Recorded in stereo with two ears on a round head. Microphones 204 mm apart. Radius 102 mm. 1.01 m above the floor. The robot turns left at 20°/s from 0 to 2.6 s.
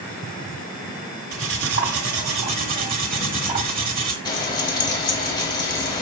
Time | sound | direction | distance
1.3 | cutlery clinking | 65° right (ahead or behind) | 1.6 m
4.2 | frying | 20° left (ahead or behind) | 1.9 m